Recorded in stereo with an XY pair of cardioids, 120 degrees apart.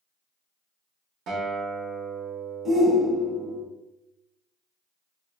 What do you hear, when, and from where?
1.3 s a guitar: 70° right, 0.9 m
2.6 s a shout: 25° right, 0.9 m